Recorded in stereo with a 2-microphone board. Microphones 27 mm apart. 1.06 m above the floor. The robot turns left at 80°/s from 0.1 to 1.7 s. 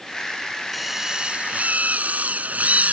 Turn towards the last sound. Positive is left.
turn(degrees=-75)